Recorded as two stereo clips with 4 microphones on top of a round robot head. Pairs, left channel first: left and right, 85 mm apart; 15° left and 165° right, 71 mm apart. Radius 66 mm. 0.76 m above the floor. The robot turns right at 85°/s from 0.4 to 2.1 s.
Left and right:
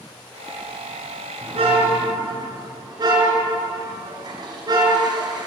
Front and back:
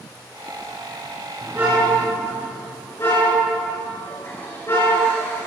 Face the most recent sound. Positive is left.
turn(degrees=-55)